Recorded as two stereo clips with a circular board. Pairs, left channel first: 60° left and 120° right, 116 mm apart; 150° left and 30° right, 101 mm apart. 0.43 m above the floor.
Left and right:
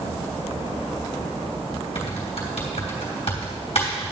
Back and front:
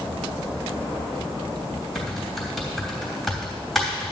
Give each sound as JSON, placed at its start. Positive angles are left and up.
{"t": 1.9, "sound": "typing on a keyboard", "azimuth_deg": 60, "distance_m": 3.0}